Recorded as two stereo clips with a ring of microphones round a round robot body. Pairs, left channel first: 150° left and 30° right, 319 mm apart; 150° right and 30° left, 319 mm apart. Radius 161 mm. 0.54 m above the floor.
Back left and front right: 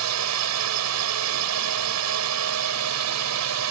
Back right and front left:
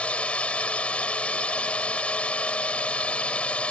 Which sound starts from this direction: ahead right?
A drone, at 0.0 s.